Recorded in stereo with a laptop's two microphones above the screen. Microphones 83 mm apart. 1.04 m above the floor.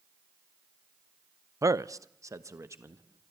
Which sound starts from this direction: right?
A man speaking, at 1.6 s.